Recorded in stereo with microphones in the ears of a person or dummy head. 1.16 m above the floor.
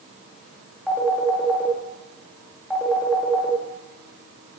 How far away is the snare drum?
I don't hear a snare drum.